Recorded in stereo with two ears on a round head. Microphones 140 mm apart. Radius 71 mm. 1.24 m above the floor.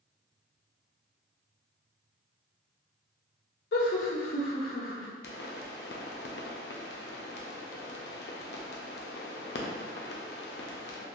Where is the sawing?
No sawing in this recording.